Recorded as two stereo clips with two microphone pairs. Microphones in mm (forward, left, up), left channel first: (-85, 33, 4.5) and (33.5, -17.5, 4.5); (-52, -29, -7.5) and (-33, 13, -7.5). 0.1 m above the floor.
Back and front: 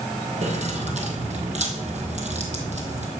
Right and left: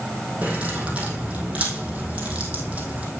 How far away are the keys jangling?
About 2.5 m.